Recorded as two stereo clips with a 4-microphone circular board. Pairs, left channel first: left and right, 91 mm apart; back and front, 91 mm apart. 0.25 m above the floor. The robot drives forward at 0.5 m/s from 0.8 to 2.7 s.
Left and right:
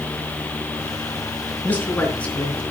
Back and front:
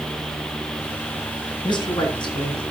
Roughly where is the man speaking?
Behind.